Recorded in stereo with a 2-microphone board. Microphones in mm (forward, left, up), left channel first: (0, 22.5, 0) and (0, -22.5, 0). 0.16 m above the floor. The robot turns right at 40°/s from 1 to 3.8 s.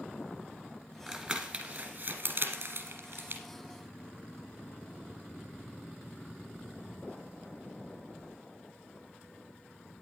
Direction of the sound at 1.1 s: 10° right (ahead or behind).